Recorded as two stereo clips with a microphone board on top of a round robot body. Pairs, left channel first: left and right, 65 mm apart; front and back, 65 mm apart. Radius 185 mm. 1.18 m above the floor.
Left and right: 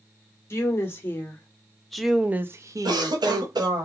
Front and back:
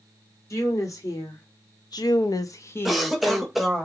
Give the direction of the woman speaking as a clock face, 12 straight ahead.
11 o'clock.